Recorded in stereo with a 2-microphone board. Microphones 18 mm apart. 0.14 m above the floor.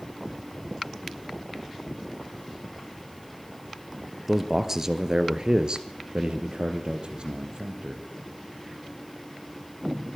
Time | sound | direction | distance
4.3 | a man speaking | 15° right (ahead or behind) | 2.5 m